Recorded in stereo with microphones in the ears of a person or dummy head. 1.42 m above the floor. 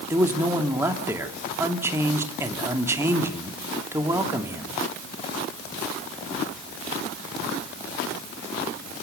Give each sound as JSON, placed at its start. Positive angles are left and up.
{"t": 0.1, "sound": "a man speaking", "side_deg": -15, "distance_m": 2.5}